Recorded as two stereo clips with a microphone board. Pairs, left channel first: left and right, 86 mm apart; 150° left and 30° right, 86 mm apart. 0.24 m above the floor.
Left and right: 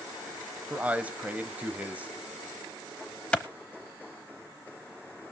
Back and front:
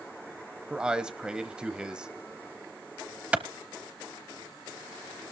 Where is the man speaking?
85° right, 0.9 m.